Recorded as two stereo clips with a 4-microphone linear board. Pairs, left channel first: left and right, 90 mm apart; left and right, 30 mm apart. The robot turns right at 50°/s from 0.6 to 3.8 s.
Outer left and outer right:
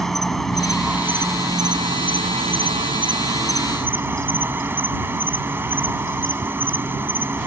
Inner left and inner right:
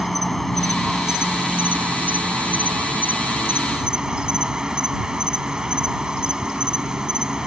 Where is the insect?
175° left; by 7.5 s 25° right.